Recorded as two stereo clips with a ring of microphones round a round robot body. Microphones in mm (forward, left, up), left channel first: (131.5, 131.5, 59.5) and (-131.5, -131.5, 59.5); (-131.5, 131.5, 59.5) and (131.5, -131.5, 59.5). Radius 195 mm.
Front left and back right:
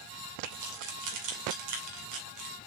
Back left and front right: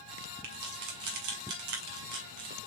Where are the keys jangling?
90° right, 2.5 m.